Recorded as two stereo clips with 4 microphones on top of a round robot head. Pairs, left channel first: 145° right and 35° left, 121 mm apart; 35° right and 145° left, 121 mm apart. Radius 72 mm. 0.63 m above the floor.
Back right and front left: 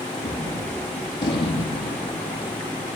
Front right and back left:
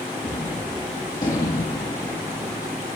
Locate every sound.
0.2 s a gunshot: 95° right, 5.5 m